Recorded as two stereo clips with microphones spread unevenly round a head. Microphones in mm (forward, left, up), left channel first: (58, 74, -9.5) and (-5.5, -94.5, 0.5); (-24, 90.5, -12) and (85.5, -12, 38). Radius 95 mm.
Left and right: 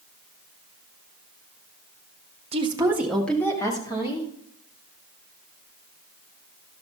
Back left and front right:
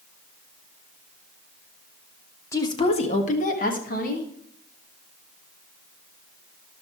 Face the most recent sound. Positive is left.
turn(degrees=130)